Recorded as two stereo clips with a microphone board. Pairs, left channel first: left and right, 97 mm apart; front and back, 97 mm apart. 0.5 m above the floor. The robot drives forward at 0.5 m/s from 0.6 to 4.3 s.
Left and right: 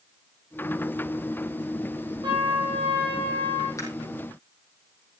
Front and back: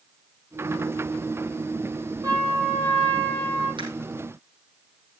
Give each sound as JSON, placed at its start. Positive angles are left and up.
{"t": 2.2, "sound": "a trumpet", "azimuth_deg": -130, "distance_m": 7.0}
{"t": 3.8, "sound": "a camera shutter", "azimuth_deg": 145, "distance_m": 4.0}